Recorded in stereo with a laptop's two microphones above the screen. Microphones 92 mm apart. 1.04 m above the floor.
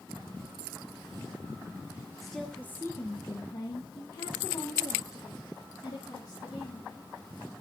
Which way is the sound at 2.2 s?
Centre (ahead or behind).